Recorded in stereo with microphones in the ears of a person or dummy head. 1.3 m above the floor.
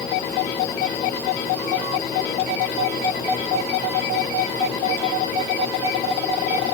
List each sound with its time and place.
Only background noise.